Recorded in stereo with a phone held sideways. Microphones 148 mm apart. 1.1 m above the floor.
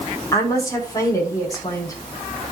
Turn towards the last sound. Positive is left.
turn(degrees=25)  # may be behind; listen again after turning